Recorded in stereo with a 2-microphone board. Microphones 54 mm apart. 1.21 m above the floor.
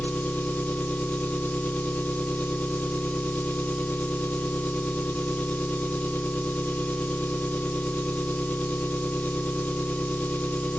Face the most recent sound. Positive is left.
turn(degrees=25)  # may be behind; listen again after turning